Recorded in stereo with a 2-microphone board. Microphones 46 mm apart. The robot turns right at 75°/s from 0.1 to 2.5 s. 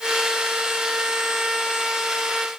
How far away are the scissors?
I don't hear scissors.